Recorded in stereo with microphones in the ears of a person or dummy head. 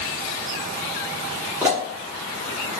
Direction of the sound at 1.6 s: 15° right (ahead or behind).